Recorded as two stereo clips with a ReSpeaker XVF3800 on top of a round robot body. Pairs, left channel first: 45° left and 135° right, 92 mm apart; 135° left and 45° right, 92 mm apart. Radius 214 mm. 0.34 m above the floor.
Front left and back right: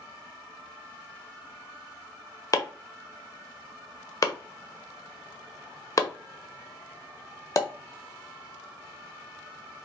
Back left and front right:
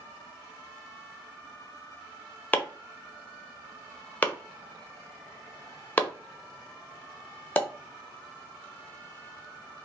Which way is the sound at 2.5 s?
75° left.